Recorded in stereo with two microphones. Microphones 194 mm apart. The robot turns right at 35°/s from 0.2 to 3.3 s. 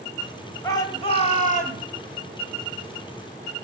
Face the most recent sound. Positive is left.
turn(degrees=110)